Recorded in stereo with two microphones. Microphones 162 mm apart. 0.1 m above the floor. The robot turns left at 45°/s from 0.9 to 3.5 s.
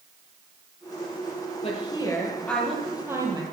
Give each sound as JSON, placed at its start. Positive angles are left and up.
{"t": 1.6, "sound": "a woman speaking", "azimuth_deg": 45, "distance_m": 3.0}